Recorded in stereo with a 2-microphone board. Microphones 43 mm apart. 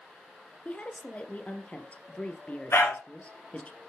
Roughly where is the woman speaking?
Left.